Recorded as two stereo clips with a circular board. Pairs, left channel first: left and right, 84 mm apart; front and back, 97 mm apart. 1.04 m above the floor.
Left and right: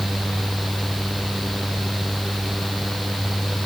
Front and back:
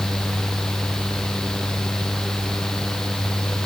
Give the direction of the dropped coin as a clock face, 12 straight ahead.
No dropped coin in this recording.